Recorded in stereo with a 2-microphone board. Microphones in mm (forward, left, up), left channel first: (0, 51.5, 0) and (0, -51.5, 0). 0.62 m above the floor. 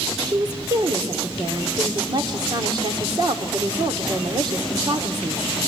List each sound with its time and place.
0.3 s a woman speaking: 45° right (ahead or behind), 1.9 m